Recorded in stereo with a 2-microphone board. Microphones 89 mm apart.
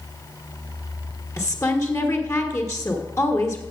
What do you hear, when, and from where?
1.4 s a woman speaking: 35° left (ahead or behind), 1.3 m